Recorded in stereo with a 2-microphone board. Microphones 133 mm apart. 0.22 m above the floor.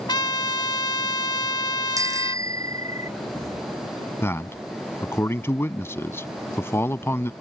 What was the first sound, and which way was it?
A trumpet, 35° left (ahead or behind).